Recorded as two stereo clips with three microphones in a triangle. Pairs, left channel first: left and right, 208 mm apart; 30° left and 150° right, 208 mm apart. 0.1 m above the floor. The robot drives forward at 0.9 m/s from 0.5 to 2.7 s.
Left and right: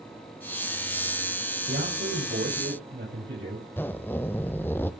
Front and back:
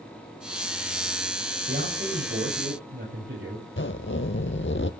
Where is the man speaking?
115° right, 6 m; by 3.6 s 120° right, 6.5 m.